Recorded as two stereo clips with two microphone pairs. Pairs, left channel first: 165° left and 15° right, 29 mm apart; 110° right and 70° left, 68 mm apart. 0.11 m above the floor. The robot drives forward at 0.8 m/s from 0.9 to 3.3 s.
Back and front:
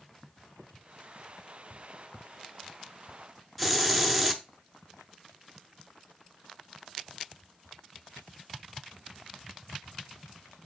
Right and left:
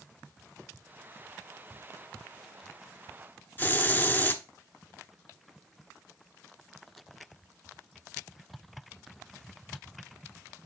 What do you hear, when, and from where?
3.6 s a hiss: 110° right, 0.8 m